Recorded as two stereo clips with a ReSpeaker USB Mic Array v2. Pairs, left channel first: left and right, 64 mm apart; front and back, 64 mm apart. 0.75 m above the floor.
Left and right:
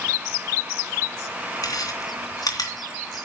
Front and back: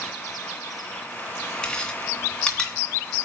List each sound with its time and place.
1.6 s chewing: 80° left, 3 m